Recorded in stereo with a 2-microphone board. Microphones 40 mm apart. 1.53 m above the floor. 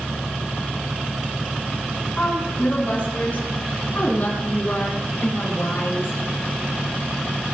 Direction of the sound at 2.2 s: 35° left (ahead or behind).